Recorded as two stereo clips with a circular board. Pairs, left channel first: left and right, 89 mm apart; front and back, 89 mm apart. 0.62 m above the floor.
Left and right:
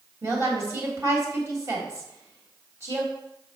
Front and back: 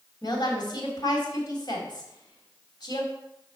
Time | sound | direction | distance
0.2 | a woman speaking | 35° right | 3.5 m